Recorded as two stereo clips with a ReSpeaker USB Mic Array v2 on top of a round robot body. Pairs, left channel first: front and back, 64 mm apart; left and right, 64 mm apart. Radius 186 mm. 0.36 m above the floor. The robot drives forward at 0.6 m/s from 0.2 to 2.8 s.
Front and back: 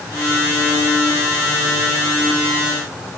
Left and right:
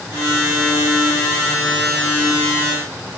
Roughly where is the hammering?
I don't hear hammering.